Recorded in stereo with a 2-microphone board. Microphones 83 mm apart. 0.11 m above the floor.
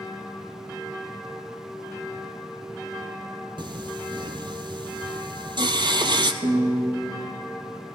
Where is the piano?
60° right (ahead or behind), 4 m.